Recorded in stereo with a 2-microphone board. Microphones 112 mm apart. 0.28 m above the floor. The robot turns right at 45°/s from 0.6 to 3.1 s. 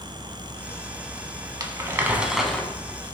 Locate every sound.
1.6 s crumpling: 40° right, 0.6 m; by 2.7 s 10° left, 0.6 m